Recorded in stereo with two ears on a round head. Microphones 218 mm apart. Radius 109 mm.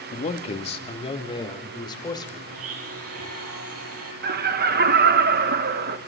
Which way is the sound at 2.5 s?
65° right (ahead or behind).